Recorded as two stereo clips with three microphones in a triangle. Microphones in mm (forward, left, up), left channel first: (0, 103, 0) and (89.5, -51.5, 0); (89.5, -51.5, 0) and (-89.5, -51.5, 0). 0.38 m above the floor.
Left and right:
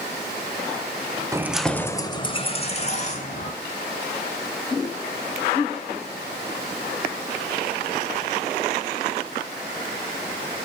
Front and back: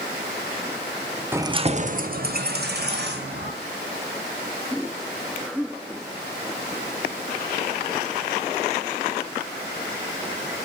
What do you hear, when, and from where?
1.3 s keys jangling: 110° right, 0.6 m; by 3.5 s 165° left, 1.9 m